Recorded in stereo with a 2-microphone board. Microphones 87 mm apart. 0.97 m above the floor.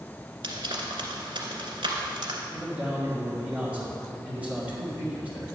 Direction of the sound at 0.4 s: 75° right (ahead or behind).